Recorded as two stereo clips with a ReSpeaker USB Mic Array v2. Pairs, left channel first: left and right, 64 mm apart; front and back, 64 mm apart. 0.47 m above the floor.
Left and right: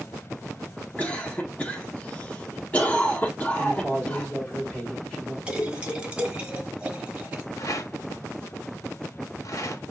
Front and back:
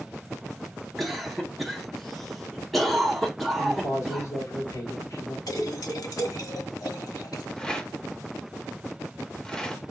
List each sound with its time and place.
1.0 s a cough: 85° left, 0.9 m
3.6 s a man speaking: 20° left, 2.5 m
5.5 s a splash: 15° right, 1.0 m
7.6 s a rattle: 75° left, 0.7 m